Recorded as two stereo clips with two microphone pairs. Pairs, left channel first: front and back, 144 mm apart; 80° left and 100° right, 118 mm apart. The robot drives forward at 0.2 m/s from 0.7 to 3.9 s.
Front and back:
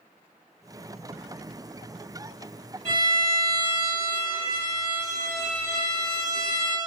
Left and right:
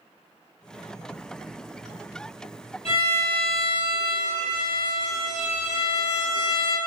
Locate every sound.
2.9 s a violin: 80° left, 1.2 m; by 6.8 s 90° left, 1.2 m